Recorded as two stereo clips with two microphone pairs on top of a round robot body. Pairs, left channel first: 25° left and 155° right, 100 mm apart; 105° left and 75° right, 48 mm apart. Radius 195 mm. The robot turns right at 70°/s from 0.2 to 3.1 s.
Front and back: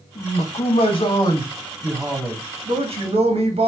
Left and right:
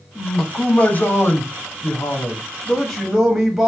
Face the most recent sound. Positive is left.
turn(degrees=-160)